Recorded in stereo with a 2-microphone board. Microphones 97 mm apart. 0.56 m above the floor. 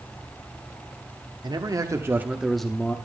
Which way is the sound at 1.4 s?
45° right (ahead or behind).